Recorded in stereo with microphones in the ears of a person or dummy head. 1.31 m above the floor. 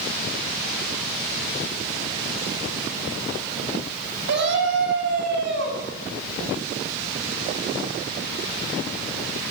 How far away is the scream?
About 9 m.